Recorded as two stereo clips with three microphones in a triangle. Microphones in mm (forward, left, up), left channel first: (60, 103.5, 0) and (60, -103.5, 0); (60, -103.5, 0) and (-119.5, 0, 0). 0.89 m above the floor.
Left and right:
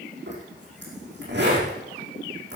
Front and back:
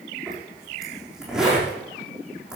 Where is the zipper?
125° right, 7.5 m.